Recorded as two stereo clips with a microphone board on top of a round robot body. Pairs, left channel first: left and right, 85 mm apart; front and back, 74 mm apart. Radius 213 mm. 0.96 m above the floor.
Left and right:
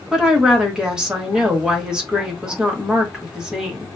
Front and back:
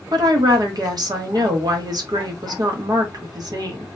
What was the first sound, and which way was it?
A woman speaking, 170° right.